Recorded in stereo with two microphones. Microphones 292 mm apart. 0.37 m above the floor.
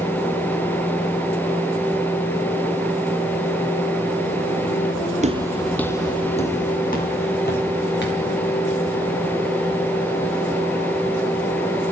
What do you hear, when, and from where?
5.2 s footsteps: 25° right (ahead or behind), 0.6 m; by 8.3 s 40° left (ahead or behind), 2.5 m